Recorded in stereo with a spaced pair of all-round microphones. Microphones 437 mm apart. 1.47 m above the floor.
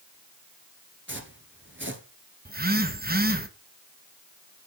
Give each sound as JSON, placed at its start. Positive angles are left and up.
{"t": 1.1, "sound": "footsteps", "side_deg": -25, "distance_m": 1.5}
{"t": 2.5, "sound": "a phone buzzing", "side_deg": -20, "distance_m": 1.0}